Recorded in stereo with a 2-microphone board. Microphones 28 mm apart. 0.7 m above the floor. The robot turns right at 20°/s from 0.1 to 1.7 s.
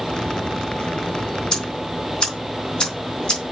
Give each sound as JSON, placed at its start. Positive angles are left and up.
{"t": 1.5, "sound": "ticking", "side_deg": 30, "distance_m": 4.0}